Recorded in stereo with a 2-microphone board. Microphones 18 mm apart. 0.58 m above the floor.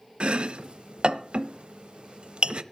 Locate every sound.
0.2 s chopping: 65° right (ahead or behind), 0.8 m